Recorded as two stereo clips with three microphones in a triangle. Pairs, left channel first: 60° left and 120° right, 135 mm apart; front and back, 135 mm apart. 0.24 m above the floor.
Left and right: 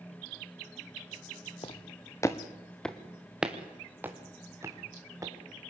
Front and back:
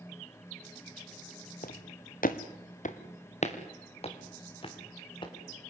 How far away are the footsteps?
About 1.5 m.